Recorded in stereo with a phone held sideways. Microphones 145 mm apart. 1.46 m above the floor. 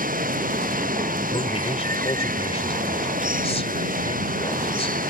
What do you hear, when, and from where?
0.0 s running water: 70° right (ahead or behind)
1.3 s a man speaking: 45° left (ahead or behind)